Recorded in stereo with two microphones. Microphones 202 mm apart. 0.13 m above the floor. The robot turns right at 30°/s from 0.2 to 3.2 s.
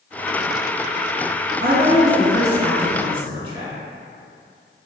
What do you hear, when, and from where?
1.6 s a woman speaking: 85° right, 1.6 m; by 3.7 s 35° right, 1.6 m